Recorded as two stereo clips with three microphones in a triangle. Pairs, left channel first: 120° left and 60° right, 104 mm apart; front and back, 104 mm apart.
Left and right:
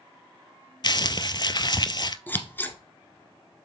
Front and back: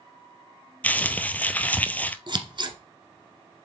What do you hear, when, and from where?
0.8 s crumpling: 75° left, 0.5 m
2.3 s scissors: 175° right, 1.1 m